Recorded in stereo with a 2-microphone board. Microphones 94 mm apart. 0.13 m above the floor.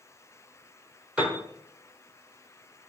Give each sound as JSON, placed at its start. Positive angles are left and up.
{"t": 1.2, "sound": "a piano", "side_deg": -15, "distance_m": 0.8}